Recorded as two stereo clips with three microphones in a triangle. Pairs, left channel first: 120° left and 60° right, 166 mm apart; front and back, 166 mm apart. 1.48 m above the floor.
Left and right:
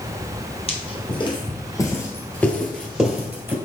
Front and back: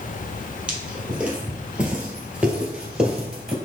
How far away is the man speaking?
No man speaking in this recording.